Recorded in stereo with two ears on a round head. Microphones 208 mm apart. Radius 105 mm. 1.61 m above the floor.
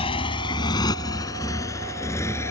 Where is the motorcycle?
25° left (ahead or behind); by 2.5 s 10° left (ahead or behind).